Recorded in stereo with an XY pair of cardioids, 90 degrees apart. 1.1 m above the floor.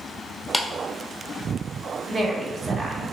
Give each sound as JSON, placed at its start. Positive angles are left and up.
{"t": 0.5, "sound": "a clap", "azimuth_deg": 0, "distance_m": 0.7}
{"t": 2.1, "sound": "a woman speaking", "azimuth_deg": -25, "distance_m": 0.9}